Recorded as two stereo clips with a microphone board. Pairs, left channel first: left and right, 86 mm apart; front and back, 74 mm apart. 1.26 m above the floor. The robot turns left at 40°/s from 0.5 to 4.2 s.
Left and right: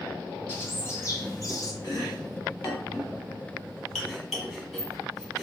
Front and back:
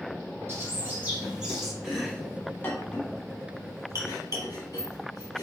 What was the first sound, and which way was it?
A bird, 140° left.